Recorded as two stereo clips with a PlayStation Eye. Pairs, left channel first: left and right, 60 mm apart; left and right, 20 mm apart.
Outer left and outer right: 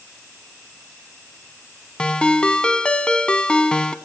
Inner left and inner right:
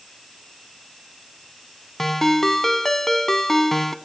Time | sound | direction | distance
2.0 | a ringtone | 15° left (ahead or behind) | 0.6 m